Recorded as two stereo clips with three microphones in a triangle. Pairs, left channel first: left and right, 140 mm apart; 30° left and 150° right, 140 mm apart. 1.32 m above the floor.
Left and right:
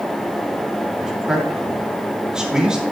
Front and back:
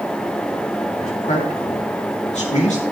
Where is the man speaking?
5° right, 3 m.